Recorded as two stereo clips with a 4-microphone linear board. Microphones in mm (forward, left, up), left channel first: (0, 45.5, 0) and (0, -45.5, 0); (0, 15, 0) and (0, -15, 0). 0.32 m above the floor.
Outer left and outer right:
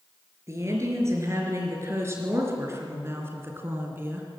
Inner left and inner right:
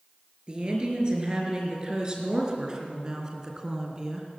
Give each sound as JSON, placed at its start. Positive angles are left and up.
{"t": 0.5, "sound": "a woman speaking", "side_deg": -30, "distance_m": 4.5}